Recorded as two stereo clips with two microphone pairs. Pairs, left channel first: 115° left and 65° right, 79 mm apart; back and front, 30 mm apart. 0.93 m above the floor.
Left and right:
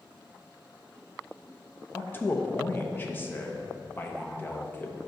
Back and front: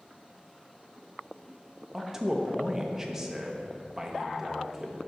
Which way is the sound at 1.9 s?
75° left.